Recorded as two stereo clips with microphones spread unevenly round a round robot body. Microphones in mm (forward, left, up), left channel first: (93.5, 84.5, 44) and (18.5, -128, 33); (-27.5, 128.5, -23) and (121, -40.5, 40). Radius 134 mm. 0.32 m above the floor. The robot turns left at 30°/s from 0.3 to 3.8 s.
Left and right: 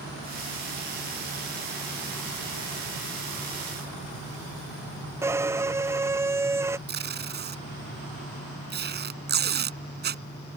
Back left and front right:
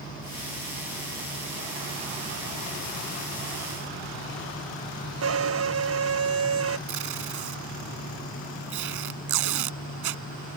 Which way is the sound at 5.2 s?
30° right.